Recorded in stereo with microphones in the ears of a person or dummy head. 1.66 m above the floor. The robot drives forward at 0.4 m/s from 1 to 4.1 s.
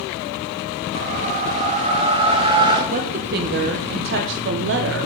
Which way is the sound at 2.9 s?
45° right (ahead or behind).